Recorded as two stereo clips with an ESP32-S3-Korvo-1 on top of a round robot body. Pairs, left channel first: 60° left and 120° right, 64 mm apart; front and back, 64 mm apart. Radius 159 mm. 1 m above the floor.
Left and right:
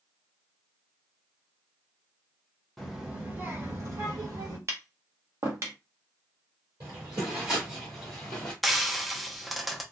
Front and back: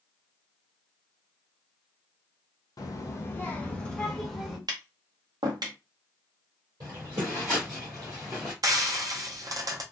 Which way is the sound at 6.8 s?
155° right.